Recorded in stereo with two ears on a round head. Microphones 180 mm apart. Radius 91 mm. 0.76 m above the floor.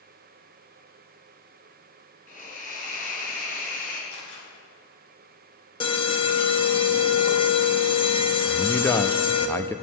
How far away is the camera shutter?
About 6 m.